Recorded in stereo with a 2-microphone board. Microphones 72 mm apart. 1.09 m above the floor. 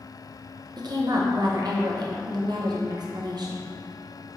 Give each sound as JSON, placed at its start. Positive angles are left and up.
{"t": 0.8, "sound": "a woman speaking", "side_deg": -65, "distance_m": 0.8}